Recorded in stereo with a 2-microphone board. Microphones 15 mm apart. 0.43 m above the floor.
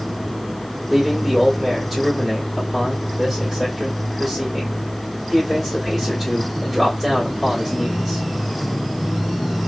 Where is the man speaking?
5° right (ahead or behind), 1.5 m.